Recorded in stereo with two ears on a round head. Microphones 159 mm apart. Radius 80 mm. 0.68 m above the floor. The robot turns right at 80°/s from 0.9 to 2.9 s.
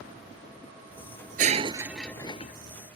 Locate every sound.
1.4 s breaking glass: 50° right; by 2.5 s 40° left